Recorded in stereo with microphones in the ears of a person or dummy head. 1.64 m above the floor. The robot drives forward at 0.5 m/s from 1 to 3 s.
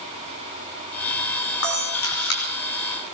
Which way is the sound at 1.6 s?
75° left (ahead or behind).